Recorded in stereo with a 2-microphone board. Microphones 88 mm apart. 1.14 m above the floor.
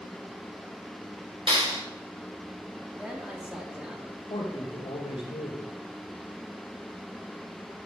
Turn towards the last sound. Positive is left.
turn(degrees=75)  # may be behind; listen again after turning